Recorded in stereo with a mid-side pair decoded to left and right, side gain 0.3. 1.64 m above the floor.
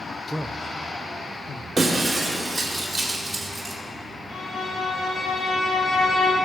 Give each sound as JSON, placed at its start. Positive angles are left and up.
{"t": 0.3, "sound": "a man speaking", "azimuth_deg": -15, "distance_m": 0.8}
{"t": 1.8, "sound": "breaking glass", "azimuth_deg": -25, "distance_m": 3.0}
{"t": 4.3, "sound": "a violin", "azimuth_deg": 65, "distance_m": 5.0}